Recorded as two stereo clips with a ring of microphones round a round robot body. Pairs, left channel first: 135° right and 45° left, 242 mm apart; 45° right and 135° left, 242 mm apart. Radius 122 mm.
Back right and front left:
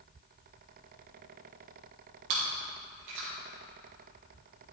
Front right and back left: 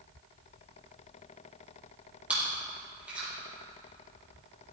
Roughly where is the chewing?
Ahead left.